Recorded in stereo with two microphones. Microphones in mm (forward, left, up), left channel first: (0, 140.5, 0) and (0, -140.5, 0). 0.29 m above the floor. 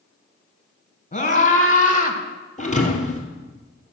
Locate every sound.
1.1 s a scream: 25° left (ahead or behind), 2.5 m; by 2.2 s 30° left (ahead or behind), 1.6 m
2.6 s a thud: 25° left (ahead or behind), 2 m